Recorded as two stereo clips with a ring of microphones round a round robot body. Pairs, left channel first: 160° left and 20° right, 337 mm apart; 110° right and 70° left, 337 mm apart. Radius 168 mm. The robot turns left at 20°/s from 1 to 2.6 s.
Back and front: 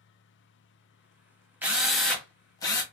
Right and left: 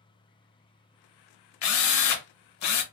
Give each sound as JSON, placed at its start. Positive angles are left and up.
{"t": 1.6, "sound": "a drill", "azimuth_deg": -105, "distance_m": 1.3}